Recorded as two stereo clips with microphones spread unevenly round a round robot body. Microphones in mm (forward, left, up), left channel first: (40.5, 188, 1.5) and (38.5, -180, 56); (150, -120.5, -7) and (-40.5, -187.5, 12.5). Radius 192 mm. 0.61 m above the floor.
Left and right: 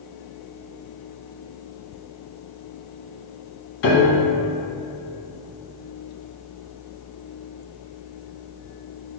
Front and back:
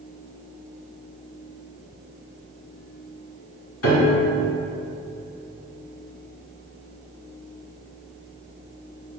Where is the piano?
30° left, 0.9 m.